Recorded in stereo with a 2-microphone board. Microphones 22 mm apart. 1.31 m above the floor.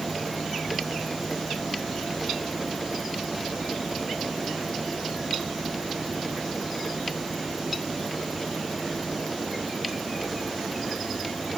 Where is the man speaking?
I don't hear a man speaking.